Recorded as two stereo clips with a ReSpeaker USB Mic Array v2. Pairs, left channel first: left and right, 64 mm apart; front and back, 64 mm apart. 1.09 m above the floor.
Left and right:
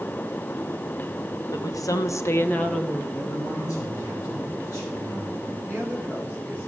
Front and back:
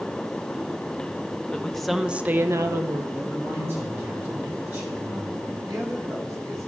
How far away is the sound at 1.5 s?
About 1.1 m.